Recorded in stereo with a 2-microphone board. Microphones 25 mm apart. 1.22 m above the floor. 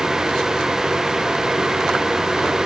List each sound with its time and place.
Only background noise.